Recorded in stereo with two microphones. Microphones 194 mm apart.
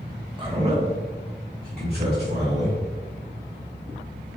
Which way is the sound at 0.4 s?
25° right (ahead or behind).